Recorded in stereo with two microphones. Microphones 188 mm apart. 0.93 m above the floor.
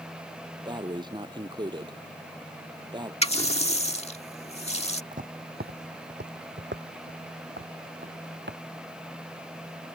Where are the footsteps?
45° right (ahead or behind); by 8.6 s 70° right (ahead or behind).